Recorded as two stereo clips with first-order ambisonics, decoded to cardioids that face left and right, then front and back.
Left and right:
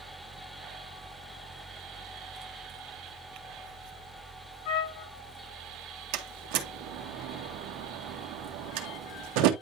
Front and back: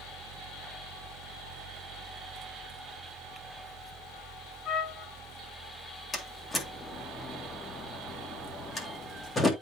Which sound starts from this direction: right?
A door slam, at 6.1 s.